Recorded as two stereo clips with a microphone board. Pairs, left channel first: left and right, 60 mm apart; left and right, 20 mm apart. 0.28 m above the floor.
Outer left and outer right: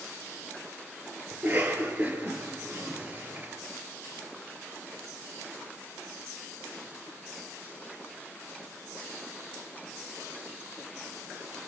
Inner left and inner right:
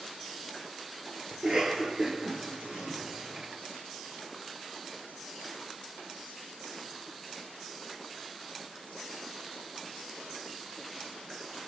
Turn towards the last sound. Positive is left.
turn(degrees=-30)  # may be behind; listen again after turning